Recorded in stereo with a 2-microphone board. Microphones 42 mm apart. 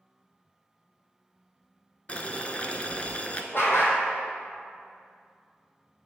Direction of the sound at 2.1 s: 30° left (ahead or behind).